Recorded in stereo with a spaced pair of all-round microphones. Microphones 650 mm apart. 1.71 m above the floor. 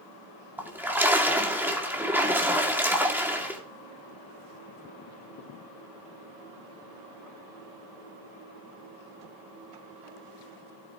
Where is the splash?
5° right (ahead or behind), 2 m.